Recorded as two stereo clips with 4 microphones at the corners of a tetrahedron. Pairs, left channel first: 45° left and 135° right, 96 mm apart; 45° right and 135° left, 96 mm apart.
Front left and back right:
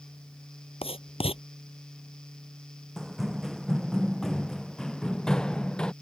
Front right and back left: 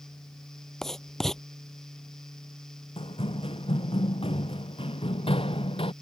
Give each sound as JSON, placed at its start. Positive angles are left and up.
{"t": 0.8, "sound": "writing", "azimuth_deg": 40}
{"t": 3.0, "sound": "running footsteps", "azimuth_deg": -50}